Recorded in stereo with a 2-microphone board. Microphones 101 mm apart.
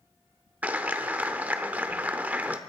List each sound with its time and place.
0.6 s a clap: 15° right (ahead or behind), 0.7 m